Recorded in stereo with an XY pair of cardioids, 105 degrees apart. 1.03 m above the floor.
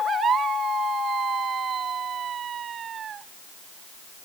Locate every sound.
Only background noise.